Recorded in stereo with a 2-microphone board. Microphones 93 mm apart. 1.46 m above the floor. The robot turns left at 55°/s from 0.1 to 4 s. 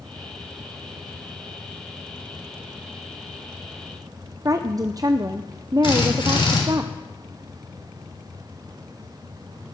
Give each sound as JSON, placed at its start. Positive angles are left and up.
{"t": 4.5, "sound": "a woman speaking", "side_deg": -40, "distance_m": 0.5}
{"t": 5.8, "sound": "a drill", "side_deg": 65, "distance_m": 3.5}